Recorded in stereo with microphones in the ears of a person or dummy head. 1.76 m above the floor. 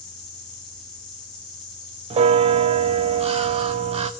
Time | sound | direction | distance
0.0 | an insect | 5° left (ahead or behind) | 3.5 m
2.1 | a bell | 25° right (ahead or behind) | 0.5 m